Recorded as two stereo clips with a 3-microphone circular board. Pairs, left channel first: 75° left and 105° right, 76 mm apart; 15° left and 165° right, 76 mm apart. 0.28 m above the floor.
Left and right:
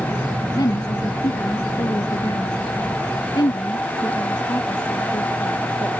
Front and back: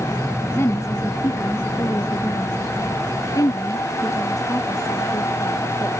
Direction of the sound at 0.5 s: 65° left.